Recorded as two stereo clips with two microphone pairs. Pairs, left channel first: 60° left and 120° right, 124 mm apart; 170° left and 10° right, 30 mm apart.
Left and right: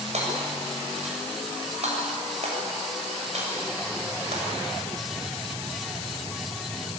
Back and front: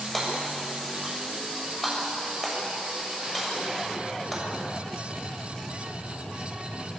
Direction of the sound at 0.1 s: 100° right.